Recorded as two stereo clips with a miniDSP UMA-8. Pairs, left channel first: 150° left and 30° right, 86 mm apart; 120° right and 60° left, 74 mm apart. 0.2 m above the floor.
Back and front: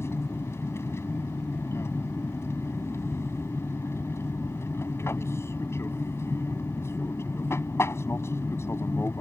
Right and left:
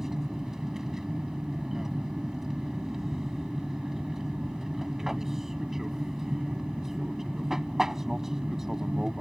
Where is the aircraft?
140° left.